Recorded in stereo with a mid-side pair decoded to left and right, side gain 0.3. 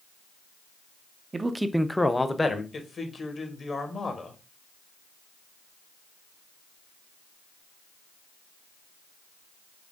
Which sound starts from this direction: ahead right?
A man speaking, at 1.3 s.